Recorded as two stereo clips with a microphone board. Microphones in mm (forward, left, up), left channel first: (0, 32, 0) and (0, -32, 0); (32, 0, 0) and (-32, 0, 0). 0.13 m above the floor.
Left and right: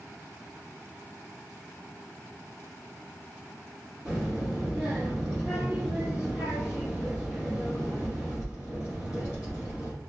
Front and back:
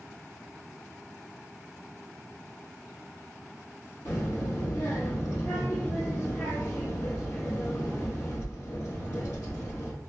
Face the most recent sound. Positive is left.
turn(degrees=-15)